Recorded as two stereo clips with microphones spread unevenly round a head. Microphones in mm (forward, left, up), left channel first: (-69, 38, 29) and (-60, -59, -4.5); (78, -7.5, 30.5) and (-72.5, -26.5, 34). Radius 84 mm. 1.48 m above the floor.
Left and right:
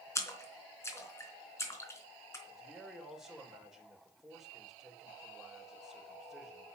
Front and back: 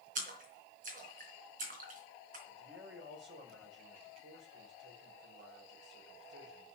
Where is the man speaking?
175° right, 4.5 m.